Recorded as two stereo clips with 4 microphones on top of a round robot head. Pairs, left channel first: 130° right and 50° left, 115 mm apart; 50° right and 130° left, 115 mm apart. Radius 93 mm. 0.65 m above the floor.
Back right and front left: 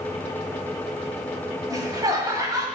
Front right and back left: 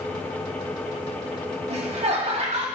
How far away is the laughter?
About 1.9 m.